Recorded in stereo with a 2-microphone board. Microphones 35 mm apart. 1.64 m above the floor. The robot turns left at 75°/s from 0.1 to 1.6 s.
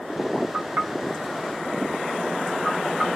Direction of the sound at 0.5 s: 60° right (ahead or behind).